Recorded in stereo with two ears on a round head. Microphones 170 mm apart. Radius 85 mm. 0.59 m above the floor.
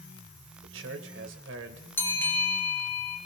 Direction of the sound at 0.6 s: 70° right (ahead or behind).